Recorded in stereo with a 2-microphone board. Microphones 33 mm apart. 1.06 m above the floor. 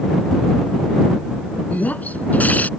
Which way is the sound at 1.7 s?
55° left (ahead or behind).